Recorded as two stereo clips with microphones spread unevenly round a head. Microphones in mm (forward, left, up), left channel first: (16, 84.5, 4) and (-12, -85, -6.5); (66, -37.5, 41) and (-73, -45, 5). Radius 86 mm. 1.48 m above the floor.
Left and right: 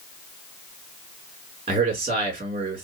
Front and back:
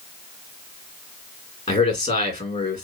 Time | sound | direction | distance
1.7 | a man speaking | 40° right | 2 m